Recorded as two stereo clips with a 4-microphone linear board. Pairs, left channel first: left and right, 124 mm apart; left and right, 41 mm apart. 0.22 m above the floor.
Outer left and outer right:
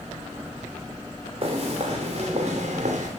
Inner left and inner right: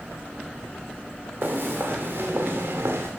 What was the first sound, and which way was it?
Footsteps, 45° right (ahead or behind).